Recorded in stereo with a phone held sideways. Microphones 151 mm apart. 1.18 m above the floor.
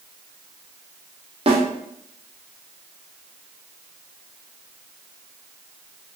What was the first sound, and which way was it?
A snare drum, 40° right (ahead or behind).